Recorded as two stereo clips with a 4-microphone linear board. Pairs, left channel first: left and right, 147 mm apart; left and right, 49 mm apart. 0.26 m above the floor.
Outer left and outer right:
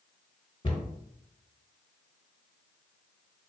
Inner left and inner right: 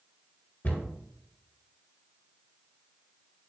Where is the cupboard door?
35° left (ahead or behind), 1.2 m.